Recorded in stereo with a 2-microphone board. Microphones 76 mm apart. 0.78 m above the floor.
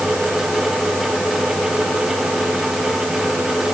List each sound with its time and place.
Only background noise.